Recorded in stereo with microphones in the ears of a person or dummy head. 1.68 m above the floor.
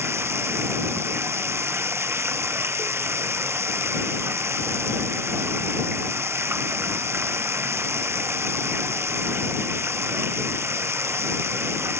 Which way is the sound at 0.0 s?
20° right (ahead or behind).